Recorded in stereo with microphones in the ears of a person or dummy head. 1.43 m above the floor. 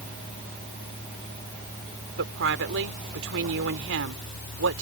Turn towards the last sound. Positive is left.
turn(degrees=-70)  # may be behind; listen again after turning